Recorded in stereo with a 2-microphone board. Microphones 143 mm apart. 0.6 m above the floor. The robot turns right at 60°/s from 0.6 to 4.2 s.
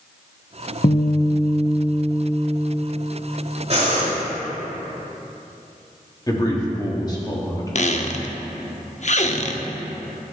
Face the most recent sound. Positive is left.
turn(degrees=55)  # may be behind; listen again after turning